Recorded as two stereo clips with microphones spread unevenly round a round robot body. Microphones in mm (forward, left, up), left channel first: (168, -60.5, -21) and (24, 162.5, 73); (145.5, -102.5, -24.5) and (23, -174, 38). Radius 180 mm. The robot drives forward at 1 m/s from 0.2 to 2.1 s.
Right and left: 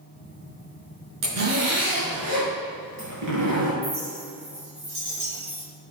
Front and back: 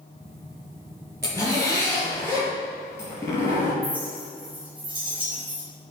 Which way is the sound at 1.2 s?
125° left.